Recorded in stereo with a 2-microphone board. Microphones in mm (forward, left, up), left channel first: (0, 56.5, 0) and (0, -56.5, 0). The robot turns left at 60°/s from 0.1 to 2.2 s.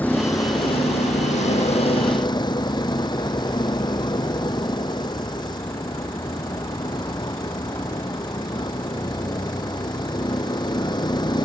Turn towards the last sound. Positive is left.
turn(degrees=40)